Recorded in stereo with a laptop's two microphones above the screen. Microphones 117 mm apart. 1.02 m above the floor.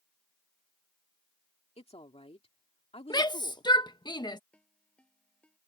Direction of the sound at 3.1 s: 40° left (ahead or behind).